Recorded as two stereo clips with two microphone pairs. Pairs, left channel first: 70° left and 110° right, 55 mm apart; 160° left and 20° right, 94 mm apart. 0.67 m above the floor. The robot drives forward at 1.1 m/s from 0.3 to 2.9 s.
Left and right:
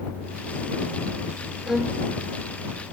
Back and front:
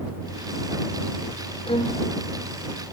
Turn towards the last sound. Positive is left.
turn(degrees=170)